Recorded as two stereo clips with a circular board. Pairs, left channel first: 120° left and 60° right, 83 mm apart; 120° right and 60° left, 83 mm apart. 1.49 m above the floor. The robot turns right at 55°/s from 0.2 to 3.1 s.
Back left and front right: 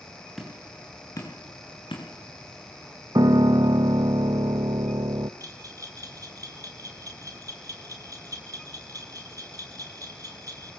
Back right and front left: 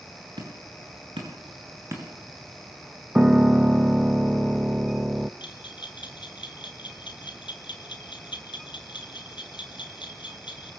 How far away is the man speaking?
I don't hear a man speaking.